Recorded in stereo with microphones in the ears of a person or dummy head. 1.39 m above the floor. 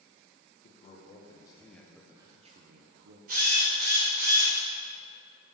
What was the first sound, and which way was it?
A man speaking, 40° left (ahead or behind).